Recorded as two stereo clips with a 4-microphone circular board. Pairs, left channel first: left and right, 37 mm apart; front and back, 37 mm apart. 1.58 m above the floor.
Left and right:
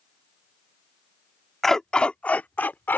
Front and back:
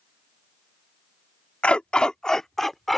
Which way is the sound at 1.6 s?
15° left.